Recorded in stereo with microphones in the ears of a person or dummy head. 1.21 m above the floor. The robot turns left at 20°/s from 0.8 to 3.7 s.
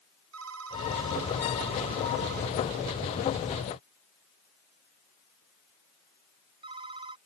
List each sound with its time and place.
0.3 s a phone ringing: 85° right; by 7.2 s 25° right (ahead or behind)